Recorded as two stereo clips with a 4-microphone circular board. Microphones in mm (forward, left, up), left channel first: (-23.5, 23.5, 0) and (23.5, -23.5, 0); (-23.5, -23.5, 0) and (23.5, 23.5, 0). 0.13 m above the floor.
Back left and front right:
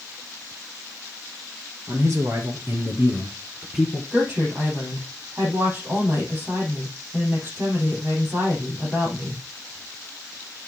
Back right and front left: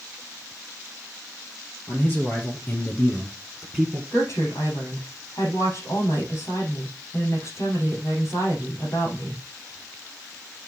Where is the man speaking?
85° right, 3 m; by 4.0 s 60° left, 1.3 m.